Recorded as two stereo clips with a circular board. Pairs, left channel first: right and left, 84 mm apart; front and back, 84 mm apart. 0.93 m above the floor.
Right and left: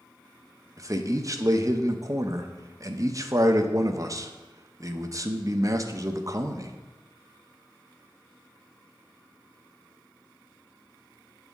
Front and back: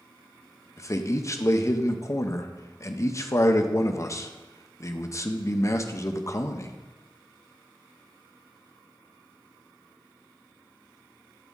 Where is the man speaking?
50° left, 0.5 m.